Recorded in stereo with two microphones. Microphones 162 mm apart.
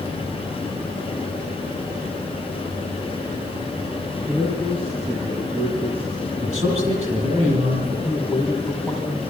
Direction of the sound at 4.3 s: 35° right (ahead or behind).